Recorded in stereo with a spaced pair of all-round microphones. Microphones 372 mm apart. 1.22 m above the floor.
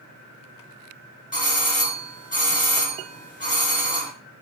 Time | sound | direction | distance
1.3 | a doorbell | 20° left (ahead or behind) | 1.2 m